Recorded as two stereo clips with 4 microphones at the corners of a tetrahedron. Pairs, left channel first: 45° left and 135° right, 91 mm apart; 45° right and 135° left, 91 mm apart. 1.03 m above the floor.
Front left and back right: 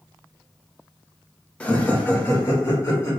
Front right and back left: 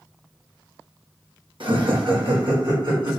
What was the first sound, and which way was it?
Laughter, 120° left.